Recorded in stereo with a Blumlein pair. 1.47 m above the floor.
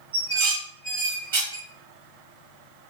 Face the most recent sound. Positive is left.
turn(degrees=-55)